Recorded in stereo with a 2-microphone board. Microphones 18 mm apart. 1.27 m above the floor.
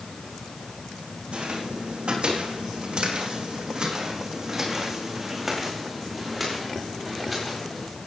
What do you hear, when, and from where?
1.3 s footsteps: 75° right (ahead or behind), 5 m; by 7.9 s 5° left (ahead or behind), 8 m